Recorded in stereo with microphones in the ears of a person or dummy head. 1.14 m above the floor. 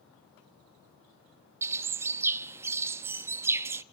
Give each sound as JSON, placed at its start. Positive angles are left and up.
{"t": 1.6, "sound": "a bird", "side_deg": -15, "distance_m": 0.8}